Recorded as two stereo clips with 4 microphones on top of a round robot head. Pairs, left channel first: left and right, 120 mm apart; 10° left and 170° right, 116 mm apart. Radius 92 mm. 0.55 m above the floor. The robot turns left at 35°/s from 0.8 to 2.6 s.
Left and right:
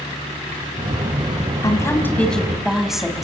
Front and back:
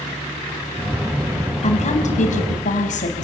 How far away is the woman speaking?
About 5 m.